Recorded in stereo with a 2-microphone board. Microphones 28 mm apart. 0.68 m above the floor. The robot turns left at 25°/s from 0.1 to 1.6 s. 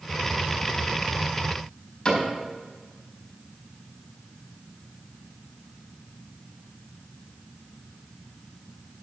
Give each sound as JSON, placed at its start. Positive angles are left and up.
{"t": 2.0, "sound": "a cupboard door", "side_deg": 30, "distance_m": 4.5}